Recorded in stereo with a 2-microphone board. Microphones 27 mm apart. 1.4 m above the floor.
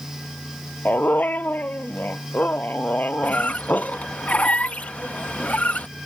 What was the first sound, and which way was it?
A dog barking, 80° left.